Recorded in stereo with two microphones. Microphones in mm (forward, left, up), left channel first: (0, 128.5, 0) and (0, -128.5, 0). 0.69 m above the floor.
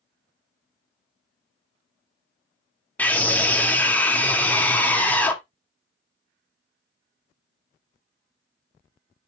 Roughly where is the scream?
Centre.